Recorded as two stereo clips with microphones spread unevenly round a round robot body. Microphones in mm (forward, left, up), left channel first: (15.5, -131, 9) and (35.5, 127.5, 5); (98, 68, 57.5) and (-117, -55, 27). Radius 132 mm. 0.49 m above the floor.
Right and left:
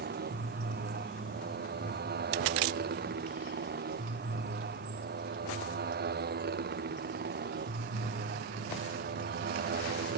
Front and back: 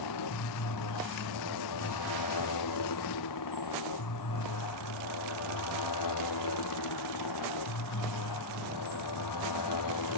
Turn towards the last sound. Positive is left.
turn(degrees=30)